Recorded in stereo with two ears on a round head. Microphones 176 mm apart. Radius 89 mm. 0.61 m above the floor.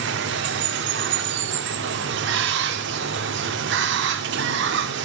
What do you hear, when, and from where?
0.0 s running water: 60° right (ahead or behind), 1.2 m